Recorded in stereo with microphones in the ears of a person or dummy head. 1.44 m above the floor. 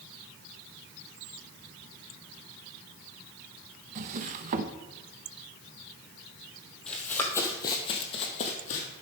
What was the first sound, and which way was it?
A drawer, 40° right (ahead or behind).